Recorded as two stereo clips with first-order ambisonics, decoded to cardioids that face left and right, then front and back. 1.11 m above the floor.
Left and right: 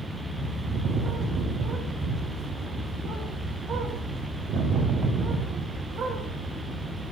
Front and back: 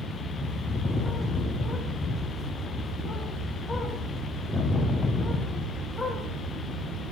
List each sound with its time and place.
0.4 s a bird: 65° right, 0.8 m